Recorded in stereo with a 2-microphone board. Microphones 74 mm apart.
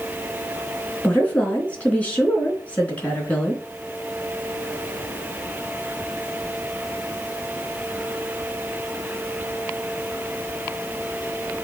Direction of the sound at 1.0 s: 20° left (ahead or behind).